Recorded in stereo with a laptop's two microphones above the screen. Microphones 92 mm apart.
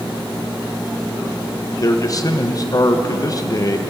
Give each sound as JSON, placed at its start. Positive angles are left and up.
{"t": 1.8, "sound": "a man speaking", "side_deg": 40, "distance_m": 0.7}